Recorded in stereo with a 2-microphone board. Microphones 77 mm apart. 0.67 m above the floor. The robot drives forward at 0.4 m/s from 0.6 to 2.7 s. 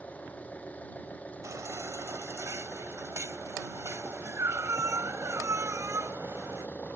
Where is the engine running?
20° left (ahead or behind).